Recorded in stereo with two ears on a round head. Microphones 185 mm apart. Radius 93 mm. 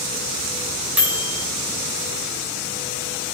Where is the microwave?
10° right (ahead or behind), 1.8 m.